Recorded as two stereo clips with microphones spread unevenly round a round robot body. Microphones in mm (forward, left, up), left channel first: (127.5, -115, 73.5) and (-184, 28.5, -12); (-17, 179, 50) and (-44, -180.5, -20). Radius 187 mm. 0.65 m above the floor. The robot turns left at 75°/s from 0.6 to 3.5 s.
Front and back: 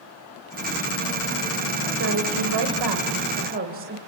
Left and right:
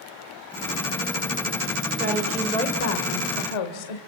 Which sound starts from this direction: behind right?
A woman speaking, at 2.0 s.